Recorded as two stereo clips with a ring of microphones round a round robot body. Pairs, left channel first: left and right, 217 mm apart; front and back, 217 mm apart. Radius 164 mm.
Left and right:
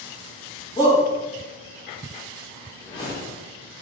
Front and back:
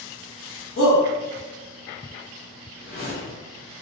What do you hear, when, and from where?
0.8 s a shout: 25° left, 1.6 m
2.8 s a whoosh: 25° left, 1.4 m